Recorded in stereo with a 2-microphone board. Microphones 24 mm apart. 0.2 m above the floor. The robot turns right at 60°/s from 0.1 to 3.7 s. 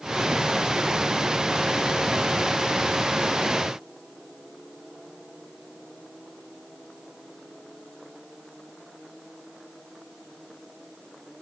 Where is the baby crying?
No baby crying in this recording.